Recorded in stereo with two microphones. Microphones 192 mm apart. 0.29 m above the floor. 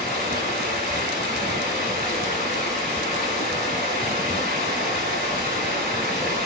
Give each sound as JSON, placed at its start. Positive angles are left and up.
{"t": 0.0, "sound": "running water", "side_deg": 45, "distance_m": 1.4}